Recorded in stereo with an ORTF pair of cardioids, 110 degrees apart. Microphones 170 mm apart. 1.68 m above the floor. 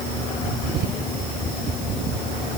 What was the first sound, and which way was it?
Only background noise.